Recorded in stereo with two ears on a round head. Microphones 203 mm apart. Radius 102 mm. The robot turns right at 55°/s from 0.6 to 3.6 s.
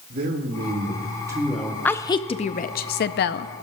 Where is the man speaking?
55° right, 1.7 m; by 1.8 s 5° left, 1.7 m.